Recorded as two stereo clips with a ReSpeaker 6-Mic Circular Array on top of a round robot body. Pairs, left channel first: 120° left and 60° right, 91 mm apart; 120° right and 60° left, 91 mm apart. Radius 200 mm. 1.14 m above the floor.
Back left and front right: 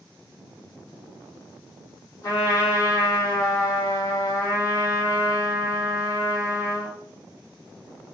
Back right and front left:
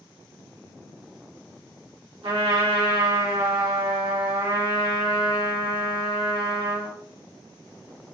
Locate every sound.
2.2 s a trumpet: 70° left, 1.7 m